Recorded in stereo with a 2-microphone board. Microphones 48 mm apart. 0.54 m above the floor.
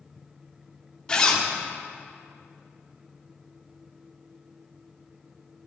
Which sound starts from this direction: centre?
A zipper, at 1.1 s.